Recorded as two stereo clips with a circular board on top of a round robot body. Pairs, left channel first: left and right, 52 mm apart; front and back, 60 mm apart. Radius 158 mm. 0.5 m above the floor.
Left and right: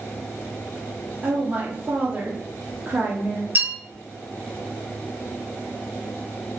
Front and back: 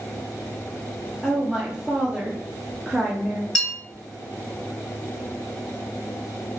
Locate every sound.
1.2 s a woman speaking: 110° right, 0.7 m
3.5 s a bell: 80° right, 1.9 m